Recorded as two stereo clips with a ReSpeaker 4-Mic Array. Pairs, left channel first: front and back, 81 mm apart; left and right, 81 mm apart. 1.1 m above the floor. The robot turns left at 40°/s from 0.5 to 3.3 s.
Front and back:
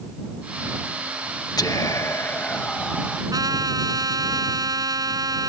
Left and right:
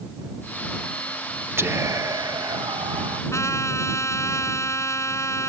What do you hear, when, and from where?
1.6 s whispering: 30° right; by 3.2 s 100° right
3.3 s a trumpet: 140° left